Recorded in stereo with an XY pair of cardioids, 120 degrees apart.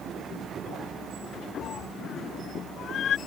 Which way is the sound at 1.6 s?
60° left.